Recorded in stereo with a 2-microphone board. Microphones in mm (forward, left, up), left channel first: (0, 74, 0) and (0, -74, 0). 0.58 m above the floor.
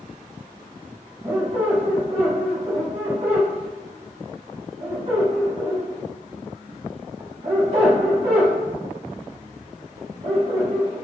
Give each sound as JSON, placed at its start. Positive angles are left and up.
{"t": 1.2, "sound": "a squeak", "side_deg": -45, "distance_m": 1.1}